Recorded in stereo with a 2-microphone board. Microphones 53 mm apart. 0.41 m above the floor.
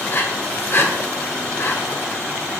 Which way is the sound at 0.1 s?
45° left (ahead or behind).